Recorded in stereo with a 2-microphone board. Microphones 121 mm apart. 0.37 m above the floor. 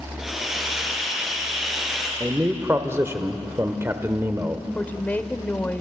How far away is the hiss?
About 3.5 m.